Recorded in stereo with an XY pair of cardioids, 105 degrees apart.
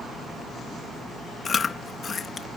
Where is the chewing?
40° left.